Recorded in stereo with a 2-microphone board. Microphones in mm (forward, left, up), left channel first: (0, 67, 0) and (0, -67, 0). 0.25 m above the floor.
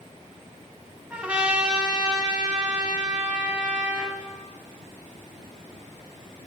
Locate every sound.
1.1 s a trumpet: 10° right (ahead or behind), 0.8 m